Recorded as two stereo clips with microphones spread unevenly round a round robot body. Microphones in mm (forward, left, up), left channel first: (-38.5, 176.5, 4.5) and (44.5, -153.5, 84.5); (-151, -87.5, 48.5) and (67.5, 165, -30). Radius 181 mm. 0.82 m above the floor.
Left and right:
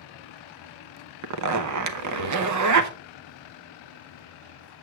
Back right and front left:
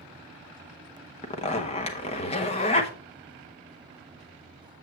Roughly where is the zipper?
Ahead right.